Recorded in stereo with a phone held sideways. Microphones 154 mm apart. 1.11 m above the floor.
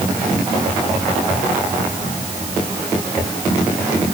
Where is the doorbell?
I don't hear a doorbell.